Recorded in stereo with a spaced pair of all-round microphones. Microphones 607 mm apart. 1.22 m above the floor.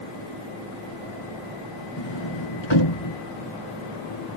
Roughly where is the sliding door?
Left.